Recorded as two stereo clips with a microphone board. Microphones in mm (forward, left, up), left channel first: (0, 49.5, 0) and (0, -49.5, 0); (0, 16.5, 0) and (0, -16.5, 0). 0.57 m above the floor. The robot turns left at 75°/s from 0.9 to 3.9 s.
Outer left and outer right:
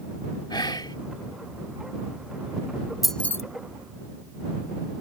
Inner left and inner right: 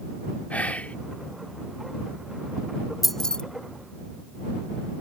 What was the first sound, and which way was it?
Whispering, 45° left (ahead or behind).